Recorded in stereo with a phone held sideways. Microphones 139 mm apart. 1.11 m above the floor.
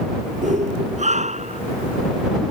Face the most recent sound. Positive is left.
turn(degrees=-50)  # may be behind; listen again after turning